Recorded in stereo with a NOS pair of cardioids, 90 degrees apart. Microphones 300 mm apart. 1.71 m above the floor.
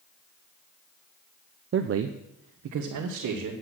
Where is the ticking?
I don't hear ticking.